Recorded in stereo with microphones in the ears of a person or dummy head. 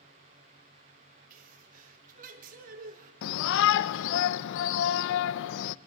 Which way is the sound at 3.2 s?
70° left (ahead or behind).